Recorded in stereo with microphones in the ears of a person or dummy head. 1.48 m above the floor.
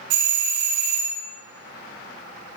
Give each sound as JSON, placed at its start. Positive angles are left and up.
{"t": 0.1, "sound": "a doorbell", "side_deg": -65, "distance_m": 1.7}